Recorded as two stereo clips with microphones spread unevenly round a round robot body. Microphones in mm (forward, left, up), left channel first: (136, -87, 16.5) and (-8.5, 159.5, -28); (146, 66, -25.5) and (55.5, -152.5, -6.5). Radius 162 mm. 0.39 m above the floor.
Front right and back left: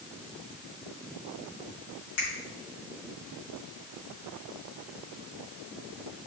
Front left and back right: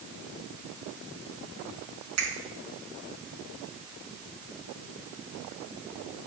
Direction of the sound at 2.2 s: 110° right.